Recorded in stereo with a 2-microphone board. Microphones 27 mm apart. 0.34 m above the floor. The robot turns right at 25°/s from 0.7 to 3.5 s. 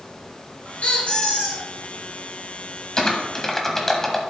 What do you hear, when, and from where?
0.8 s a squeak: 50° left (ahead or behind), 2.5 m; by 1.6 s 30° left (ahead or behind), 2.5 m
3.0 s typing on a keyboard: 25° left (ahead or behind), 1.3 m; by 4.2 s 15° left (ahead or behind), 1.3 m